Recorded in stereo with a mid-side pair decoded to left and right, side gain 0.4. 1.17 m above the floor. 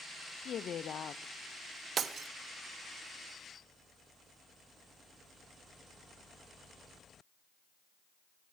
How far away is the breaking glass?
About 1.0 m.